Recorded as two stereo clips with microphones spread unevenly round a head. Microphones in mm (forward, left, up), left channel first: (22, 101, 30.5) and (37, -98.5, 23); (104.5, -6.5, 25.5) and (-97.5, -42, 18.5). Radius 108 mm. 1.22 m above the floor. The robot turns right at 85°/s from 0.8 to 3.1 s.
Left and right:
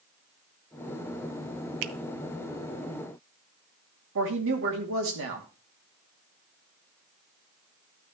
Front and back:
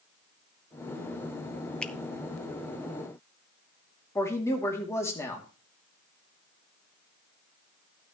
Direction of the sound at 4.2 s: 65° right.